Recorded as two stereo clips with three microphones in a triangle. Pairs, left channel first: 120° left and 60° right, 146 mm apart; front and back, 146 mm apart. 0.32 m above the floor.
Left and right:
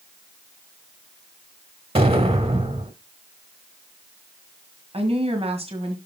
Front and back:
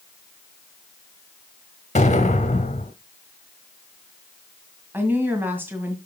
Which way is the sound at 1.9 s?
25° right.